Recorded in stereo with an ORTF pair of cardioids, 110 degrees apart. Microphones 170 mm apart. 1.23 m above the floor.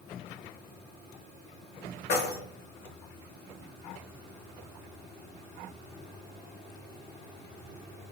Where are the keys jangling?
65° left, 0.8 m.